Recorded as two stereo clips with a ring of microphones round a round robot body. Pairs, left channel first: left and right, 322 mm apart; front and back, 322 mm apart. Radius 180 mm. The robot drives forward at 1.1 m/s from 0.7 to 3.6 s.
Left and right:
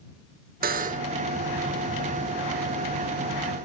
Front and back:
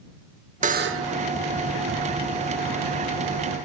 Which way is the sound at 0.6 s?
130° right.